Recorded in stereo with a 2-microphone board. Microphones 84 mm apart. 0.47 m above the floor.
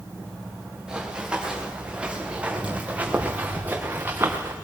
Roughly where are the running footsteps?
Centre.